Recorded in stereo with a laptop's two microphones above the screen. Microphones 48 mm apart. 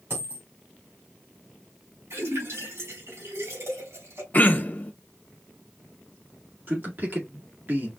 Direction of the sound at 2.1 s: 65° right (ahead or behind).